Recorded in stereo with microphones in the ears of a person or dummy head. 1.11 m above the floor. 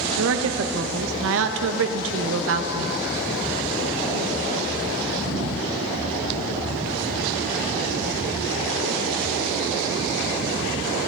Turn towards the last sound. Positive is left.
turn(degrees=-70)  # may be behind; listen again after turning